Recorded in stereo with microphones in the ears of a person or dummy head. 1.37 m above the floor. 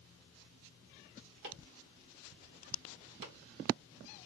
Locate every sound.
1.4 s chopping: 65° right (ahead or behind), 1.7 m